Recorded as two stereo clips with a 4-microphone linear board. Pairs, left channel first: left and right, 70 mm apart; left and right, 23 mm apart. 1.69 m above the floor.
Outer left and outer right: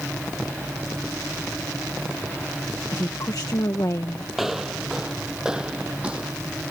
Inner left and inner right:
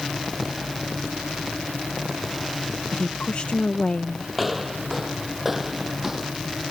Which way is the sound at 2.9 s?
60° left (ahead or behind).